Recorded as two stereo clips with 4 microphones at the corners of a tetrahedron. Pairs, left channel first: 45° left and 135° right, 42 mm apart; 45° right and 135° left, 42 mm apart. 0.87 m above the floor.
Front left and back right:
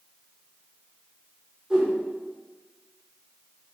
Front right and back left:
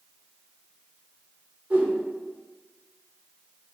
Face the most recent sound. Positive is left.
turn(degrees=160)